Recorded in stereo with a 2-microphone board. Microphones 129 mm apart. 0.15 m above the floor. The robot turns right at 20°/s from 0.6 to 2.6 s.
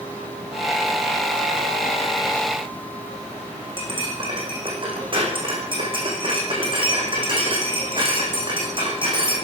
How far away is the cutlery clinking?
About 6 m.